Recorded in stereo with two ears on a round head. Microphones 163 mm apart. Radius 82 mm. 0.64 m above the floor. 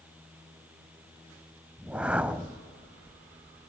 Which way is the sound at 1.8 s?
5° right (ahead or behind).